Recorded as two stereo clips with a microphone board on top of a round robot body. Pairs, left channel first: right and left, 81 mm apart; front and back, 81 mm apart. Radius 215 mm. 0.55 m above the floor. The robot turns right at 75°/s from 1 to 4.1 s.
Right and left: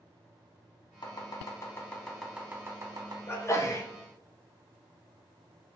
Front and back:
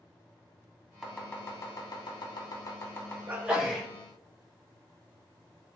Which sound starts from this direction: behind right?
A sneeze, at 3.3 s.